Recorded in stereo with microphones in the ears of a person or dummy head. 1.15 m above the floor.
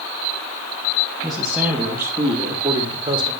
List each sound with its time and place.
1.2 s a man speaking: 5° left (ahead or behind), 1.7 m; by 3.3 s 25° right (ahead or behind), 2.5 m